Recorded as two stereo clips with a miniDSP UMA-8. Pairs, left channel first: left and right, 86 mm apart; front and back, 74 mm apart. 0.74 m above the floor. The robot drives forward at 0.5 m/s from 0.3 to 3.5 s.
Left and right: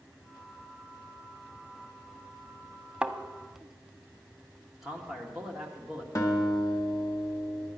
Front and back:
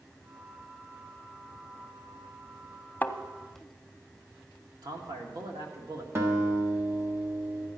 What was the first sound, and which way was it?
A thud, 25° right.